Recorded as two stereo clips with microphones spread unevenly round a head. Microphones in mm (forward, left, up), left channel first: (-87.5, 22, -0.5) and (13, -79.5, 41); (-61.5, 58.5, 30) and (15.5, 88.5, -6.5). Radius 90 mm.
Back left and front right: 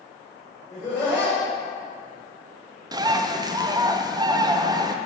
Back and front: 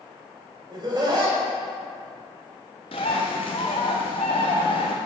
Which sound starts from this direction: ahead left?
Laughter, at 0.7 s.